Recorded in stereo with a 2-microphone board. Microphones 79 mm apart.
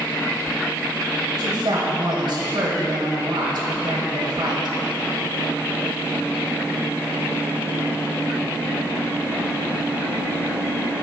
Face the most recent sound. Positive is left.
turn(degrees=-60)  # may be behind; listen again after turning